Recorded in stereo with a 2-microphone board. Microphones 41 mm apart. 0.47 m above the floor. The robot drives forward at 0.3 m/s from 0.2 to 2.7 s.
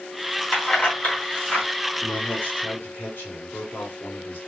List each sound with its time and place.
0.5 s keys jangling: 35° left (ahead or behind), 2.5 m; by 1.7 s 40° left (ahead or behind), 2.5 m
2.0 s a man speaking: 50° left (ahead or behind), 1.8 m